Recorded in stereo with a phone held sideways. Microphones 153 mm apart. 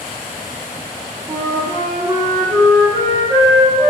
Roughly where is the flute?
Right.